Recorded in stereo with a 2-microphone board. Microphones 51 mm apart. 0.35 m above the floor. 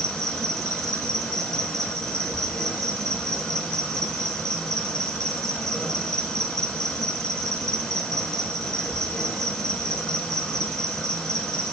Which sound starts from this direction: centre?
An insect, at 0.0 s.